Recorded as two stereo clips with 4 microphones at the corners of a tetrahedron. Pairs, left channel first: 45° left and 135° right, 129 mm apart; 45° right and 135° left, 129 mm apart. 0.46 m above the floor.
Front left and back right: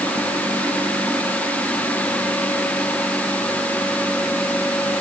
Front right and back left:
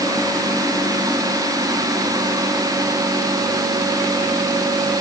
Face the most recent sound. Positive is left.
No sound to turn to.